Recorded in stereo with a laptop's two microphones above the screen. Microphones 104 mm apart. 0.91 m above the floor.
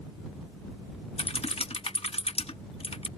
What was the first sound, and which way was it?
Typing on a keyboard, 70° left (ahead or behind).